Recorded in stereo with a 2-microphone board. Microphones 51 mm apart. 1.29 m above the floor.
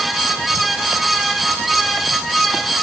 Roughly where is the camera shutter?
I don't hear a camera shutter.